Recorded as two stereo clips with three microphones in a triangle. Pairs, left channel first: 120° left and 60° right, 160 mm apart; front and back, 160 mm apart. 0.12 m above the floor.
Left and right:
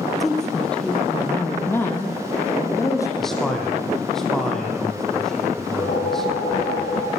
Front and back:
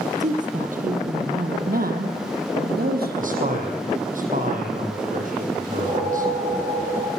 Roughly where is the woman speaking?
Behind right.